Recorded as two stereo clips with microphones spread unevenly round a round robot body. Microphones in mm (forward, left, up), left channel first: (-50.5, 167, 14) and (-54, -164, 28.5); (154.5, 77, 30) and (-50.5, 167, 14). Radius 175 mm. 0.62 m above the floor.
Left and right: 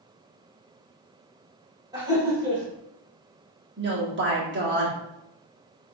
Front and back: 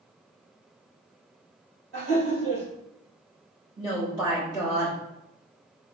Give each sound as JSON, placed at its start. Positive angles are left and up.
{"t": 1.9, "sound": "laughter", "azimuth_deg": -170, "distance_m": 2.0}
{"t": 3.8, "sound": "a woman speaking", "azimuth_deg": -140, "distance_m": 1.6}